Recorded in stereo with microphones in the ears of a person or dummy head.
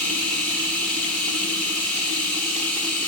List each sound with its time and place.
0.0 s running water: 5° left (ahead or behind), 1.5 m